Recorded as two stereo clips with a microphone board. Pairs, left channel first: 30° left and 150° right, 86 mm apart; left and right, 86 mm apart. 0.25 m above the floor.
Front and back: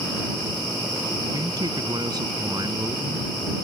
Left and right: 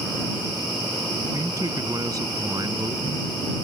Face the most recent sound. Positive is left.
turn(degrees=-120)